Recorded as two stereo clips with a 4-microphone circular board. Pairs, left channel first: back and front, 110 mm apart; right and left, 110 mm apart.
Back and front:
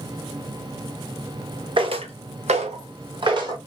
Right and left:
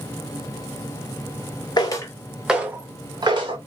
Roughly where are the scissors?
No scissors in this recording.